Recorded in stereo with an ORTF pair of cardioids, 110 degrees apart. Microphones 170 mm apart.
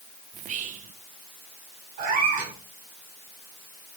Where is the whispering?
50° right, 0.8 m.